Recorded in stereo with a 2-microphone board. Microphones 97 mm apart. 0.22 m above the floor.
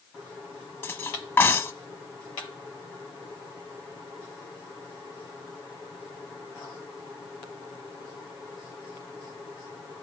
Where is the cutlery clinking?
20° left (ahead or behind), 0.9 m.